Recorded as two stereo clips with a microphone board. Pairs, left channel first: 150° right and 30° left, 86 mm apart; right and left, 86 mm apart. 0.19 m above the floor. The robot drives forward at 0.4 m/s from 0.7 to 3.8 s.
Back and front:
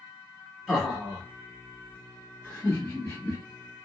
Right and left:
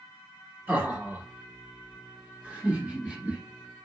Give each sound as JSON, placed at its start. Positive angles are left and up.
{"t": 0.7, "sound": "laughter", "azimuth_deg": 110, "distance_m": 1.7}